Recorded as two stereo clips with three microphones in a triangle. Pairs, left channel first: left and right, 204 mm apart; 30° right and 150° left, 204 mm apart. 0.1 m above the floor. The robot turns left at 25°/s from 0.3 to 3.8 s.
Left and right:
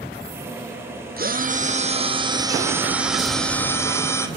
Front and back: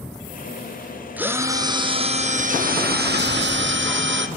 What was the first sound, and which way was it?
A drill, 125° right.